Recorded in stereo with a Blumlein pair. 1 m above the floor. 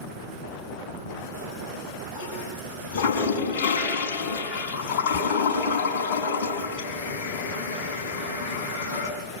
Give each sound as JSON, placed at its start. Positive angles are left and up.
{"t": 0.9, "sound": "a toilet flushing", "azimuth_deg": 50, "distance_m": 5.5}